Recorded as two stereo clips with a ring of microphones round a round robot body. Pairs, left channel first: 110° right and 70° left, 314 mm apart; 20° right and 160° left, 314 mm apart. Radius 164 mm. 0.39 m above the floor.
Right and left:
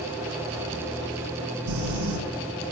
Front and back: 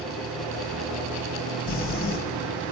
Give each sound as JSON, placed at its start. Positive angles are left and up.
{"t": 1.7, "sound": "crumpling", "azimuth_deg": 40, "distance_m": 3.5}